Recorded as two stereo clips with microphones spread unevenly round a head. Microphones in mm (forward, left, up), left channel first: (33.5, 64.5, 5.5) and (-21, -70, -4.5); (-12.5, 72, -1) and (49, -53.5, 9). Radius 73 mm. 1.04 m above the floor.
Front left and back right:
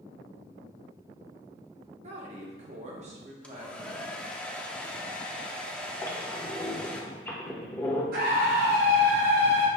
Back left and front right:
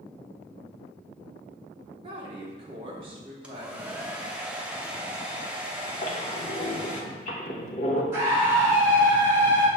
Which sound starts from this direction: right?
A woman speaking, at 2.0 s.